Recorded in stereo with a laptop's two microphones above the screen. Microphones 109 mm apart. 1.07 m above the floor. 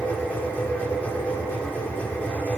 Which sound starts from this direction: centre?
A machine running, at 0.0 s.